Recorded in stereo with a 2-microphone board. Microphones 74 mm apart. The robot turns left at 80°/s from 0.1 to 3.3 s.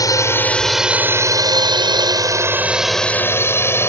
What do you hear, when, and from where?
0.0 s a drone: 50° left (ahead or behind); by 3.9 s 35° left (ahead or behind)